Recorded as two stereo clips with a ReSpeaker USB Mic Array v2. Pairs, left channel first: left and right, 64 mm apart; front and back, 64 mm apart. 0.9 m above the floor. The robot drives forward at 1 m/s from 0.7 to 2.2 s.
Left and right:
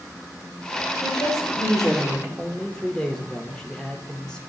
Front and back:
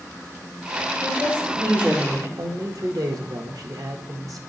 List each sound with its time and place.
1.0 s a woman speaking: 105° left, 4 m; by 2.3 s 120° left, 4 m
2.4 s a man speaking: 165° left, 1.0 m